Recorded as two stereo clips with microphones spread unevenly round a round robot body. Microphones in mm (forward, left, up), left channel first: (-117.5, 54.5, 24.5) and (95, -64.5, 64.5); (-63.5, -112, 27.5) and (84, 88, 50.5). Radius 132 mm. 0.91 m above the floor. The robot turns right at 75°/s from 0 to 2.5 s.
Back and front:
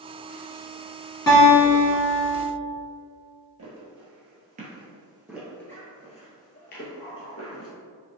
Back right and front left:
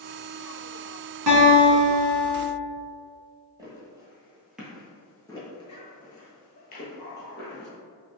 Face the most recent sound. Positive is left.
turn(degrees=-175)